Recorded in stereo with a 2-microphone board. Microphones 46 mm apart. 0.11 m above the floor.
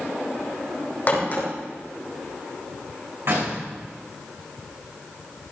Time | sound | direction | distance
1.1 | a crack | 40° left (ahead or behind) | 5.5 m
3.2 | a door slam | 55° right (ahead or behind) | 6.5 m